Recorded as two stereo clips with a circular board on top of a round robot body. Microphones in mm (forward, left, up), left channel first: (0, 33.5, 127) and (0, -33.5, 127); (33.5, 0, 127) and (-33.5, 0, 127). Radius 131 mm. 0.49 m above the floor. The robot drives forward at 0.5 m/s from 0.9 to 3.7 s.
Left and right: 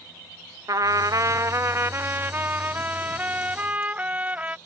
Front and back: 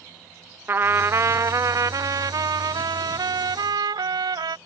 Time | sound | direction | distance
0.7 | a trumpet | 125° right | ?